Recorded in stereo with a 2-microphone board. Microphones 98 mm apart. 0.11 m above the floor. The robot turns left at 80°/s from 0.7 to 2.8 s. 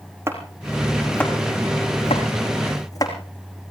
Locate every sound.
0.3 s chopping: 25° right (ahead or behind), 4 m; by 3.7 s 35° left (ahead or behind), 4 m